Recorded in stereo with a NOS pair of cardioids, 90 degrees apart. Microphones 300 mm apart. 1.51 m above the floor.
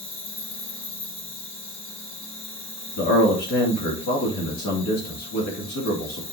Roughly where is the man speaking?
Left.